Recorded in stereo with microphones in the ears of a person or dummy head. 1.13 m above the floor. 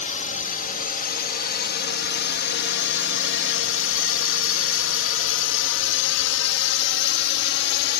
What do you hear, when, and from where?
0.0 s a drone: 35° left (ahead or behind); by 8.0 s 55° left (ahead or behind)